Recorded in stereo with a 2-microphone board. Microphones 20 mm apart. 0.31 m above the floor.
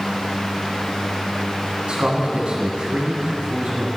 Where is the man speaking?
60° right (ahead or behind), 2.5 m.